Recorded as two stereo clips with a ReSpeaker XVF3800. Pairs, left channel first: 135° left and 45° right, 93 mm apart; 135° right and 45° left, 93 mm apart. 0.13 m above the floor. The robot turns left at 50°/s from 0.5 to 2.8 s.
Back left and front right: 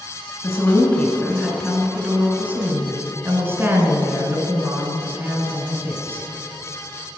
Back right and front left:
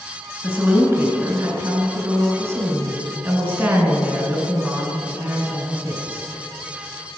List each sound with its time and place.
0.4 s a woman speaking: 105° left, 1.3 m; by 6.3 s 10° right, 1.3 m